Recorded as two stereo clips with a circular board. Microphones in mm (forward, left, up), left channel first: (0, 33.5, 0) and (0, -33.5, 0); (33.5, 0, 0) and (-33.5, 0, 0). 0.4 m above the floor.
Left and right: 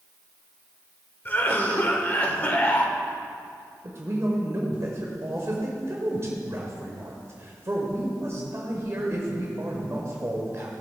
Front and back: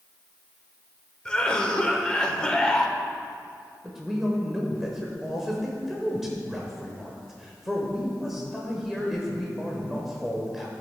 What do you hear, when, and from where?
1.2 s a cough: 65° left, 1.0 m
3.8 s a man speaking: 95° right, 1.2 m